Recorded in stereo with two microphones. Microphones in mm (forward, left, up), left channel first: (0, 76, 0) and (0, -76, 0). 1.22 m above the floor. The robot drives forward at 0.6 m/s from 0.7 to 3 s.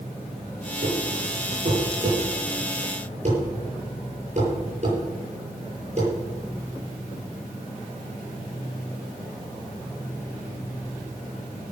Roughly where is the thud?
Right.